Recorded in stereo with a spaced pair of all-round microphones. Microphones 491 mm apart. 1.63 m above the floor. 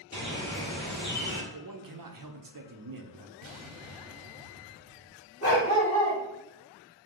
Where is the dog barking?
30° left (ahead or behind), 1.4 m.